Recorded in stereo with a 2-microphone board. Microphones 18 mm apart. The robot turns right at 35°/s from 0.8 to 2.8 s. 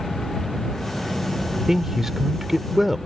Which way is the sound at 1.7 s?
25° right (ahead or behind).